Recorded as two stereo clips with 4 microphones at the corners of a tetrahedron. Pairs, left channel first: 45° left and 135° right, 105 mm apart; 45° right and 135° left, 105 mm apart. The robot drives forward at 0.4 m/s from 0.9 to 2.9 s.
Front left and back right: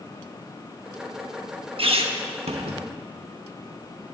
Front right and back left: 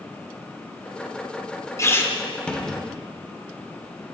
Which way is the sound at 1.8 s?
105° right.